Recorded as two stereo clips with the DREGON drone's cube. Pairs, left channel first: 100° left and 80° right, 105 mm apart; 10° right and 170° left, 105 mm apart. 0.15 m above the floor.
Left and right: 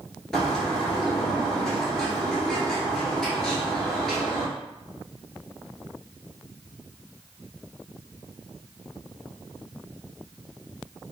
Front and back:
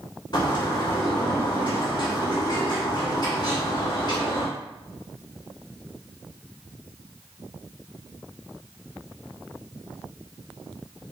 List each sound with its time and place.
0.3 s a bird: 15° left, 1.3 m